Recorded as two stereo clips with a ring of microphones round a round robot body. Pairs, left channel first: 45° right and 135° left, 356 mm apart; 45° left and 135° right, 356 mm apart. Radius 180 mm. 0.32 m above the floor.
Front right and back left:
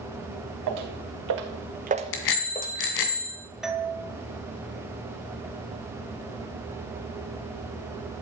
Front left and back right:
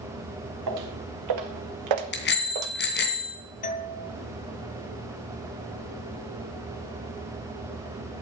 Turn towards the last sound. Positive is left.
turn(degrees=50)